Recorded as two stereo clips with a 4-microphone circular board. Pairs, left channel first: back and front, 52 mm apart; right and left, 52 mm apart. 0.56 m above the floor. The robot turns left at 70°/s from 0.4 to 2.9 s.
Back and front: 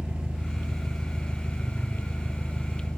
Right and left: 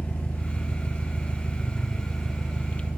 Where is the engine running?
60° right, 1.0 m; by 3.0 s 125° left, 1.0 m.